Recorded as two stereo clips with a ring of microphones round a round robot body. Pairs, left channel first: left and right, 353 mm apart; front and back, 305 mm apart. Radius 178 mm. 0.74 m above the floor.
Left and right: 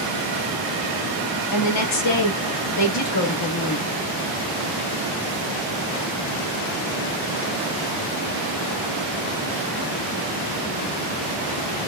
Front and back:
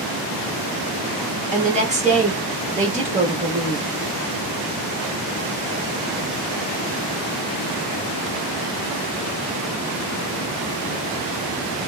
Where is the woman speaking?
115° left, 1.2 m.